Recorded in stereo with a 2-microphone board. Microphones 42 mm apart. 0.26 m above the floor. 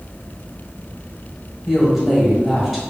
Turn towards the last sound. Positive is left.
turn(degrees=-10)  # may be behind; listen again after turning